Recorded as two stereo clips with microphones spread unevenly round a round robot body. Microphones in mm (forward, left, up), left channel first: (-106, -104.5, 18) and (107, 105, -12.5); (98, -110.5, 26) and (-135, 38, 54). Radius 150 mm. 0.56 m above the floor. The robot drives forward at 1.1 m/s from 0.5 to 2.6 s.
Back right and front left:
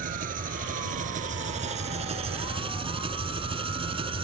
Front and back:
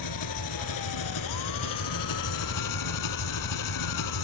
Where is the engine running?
20° right; by 4.2 s 30° right.